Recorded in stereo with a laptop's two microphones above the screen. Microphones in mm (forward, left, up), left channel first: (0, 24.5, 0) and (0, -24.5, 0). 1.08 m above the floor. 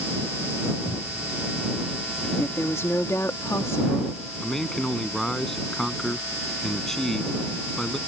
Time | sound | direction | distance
0.8 | a cupboard door | 40° left (ahead or behind) | ?
2.4 | a woman speaking | 75° left (ahead or behind) | ?
4.4 | a man speaking | 5° left (ahead or behind) | ?